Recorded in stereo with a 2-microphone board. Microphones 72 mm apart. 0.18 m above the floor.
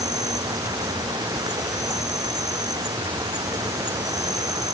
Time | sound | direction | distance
0.0 | an insect | 65° right (ahead or behind) | ?